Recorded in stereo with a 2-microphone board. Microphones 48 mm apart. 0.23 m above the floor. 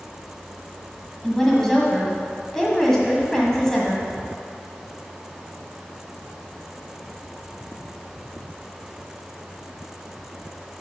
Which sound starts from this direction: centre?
A woman speaking, at 1.2 s.